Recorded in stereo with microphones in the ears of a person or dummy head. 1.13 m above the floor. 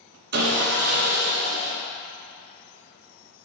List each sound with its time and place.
0.3 s sawing: 55° right (ahead or behind), 0.9 m